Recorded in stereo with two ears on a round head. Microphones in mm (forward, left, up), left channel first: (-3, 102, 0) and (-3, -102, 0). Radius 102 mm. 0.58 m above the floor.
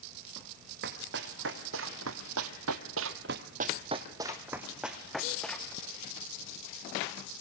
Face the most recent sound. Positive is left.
turn(degrees=5)  # may be behind; listen again after turning